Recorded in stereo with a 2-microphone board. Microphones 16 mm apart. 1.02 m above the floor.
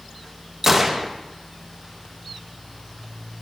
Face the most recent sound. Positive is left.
turn(degrees=-15)  # may be behind; listen again after turning